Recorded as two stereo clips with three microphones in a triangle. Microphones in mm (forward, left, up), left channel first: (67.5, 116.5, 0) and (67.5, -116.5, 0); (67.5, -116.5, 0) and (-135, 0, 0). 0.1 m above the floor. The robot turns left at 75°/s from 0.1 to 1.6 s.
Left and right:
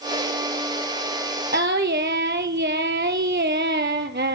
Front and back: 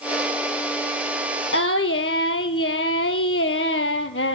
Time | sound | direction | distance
1.5 | singing | 45° right | 0.6 m